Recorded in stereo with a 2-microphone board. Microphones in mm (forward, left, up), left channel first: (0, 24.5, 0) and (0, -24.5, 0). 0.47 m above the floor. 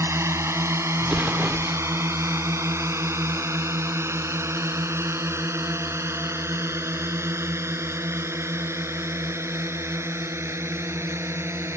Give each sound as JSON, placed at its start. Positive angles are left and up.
{"t": 0.0, "sound": "a drone", "side_deg": -70}
{"t": 1.0, "sound": "an explosion", "side_deg": -25}